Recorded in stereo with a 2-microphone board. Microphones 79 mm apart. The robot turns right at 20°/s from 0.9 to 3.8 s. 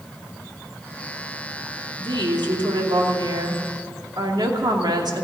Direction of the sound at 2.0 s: 100° right.